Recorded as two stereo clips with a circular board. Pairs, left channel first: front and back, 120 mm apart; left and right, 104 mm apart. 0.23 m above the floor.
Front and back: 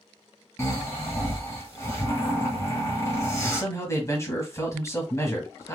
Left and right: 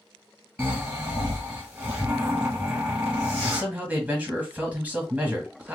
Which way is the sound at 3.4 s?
30° right.